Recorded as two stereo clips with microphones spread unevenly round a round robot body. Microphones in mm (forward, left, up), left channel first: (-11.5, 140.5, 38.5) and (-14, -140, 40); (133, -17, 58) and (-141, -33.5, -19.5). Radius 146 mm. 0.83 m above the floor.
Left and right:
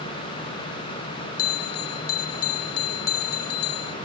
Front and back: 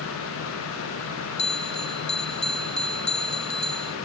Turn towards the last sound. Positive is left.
turn(degrees=75)